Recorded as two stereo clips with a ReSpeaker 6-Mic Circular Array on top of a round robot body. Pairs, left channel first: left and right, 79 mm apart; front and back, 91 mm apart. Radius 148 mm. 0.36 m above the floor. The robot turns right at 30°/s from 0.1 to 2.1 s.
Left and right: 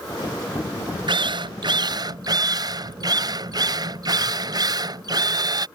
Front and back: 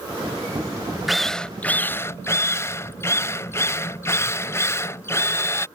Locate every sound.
1.1 s a drill: 90° right; by 5.7 s 60° right